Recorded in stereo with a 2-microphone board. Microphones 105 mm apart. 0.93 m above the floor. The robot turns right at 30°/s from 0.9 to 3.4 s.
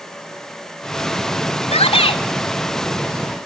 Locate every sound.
1.7 s a shout: 70° left (ahead or behind), 3 m; by 2.2 s 55° left (ahead or behind), 3 m